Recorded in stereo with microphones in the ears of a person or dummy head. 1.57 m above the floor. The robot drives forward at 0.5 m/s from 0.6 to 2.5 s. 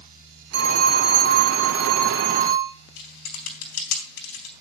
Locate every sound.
0.5 s a phone ringing: 60° right (ahead or behind), 3 m; by 2.7 s 50° right (ahead or behind), 3.5 m
3.0 s typing on a keyboard: 65° left (ahead or behind), 4 m